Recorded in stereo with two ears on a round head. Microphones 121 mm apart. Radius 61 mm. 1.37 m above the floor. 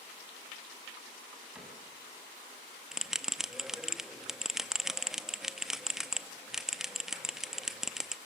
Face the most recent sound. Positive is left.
turn(degrees=-5)  # may be behind; listen again after turning